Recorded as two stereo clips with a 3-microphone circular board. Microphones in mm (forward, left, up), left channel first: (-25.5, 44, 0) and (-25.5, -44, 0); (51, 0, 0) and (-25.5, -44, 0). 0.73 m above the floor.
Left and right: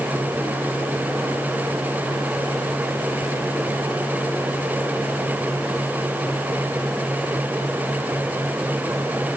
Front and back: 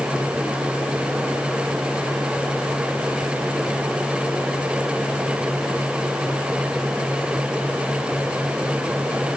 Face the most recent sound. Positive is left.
No sound to turn to.